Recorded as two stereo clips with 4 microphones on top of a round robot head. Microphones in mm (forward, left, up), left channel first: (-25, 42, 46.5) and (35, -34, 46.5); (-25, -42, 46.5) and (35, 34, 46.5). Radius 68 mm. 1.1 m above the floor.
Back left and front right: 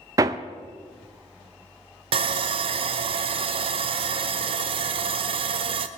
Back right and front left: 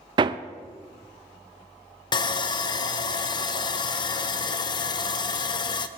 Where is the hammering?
5° left, 0.5 m.